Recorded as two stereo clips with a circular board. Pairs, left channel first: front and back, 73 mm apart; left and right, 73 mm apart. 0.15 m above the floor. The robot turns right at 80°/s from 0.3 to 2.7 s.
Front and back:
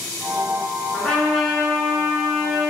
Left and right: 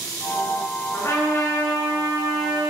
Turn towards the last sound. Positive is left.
turn(degrees=-165)